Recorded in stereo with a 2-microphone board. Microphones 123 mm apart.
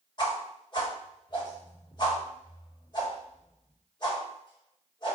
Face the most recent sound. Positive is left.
turn(degrees=40)  # may be behind; listen again after turning